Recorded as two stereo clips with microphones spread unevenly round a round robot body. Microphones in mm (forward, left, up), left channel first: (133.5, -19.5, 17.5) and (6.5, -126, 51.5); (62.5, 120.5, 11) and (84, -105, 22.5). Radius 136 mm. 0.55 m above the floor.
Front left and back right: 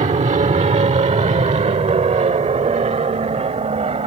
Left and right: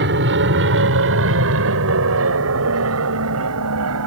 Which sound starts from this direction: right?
An aircraft, at 0.0 s.